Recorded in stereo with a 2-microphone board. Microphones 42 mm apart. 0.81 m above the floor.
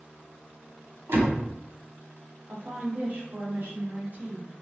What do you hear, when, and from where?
1.1 s a door slam: 50° right (ahead or behind), 1.1 m
2.5 s a woman speaking: 35° right (ahead or behind), 1.0 m